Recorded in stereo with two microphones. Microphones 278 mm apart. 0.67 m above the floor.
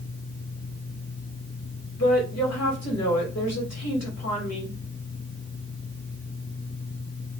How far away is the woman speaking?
About 2 m.